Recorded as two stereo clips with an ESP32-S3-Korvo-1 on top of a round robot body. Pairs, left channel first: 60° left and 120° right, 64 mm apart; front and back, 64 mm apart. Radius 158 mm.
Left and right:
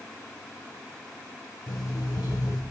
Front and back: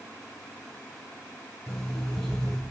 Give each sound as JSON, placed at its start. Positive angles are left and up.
{"t": 1.7, "sound": "an alarm clock", "azimuth_deg": 75, "distance_m": 2.0}